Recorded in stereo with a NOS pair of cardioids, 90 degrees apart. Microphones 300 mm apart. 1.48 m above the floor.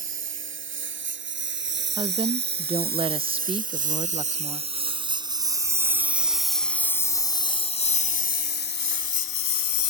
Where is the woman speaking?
15° right.